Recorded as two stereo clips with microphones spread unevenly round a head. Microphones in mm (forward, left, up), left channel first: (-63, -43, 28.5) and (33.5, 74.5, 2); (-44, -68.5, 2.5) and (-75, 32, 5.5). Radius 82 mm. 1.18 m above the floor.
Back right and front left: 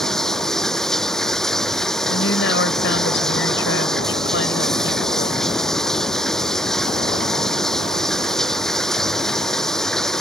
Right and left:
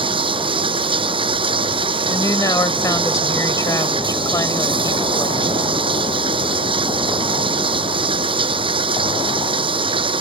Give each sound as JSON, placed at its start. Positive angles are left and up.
{"t": 0.0, "sound": "running water", "azimuth_deg": 145}
{"t": 2.1, "sound": "a woman speaking", "azimuth_deg": -135}